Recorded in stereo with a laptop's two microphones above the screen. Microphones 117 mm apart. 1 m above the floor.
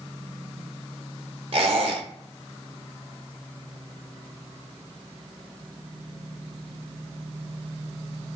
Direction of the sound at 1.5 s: 55° right (ahead or behind).